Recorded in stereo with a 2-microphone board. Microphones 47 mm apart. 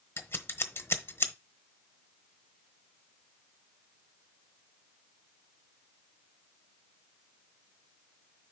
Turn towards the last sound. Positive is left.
turn(degrees=60)  # may be behind; listen again after turning